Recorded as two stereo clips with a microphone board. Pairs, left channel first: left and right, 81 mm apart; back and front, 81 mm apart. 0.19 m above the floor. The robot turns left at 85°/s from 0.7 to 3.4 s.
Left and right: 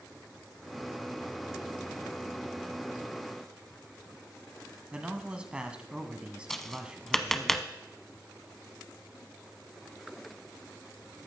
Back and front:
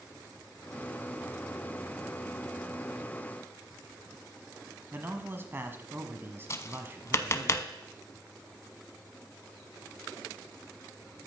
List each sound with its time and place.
4.9 s a man speaking: 25° right, 1.2 m
6.5 s tapping: 175° left, 0.8 m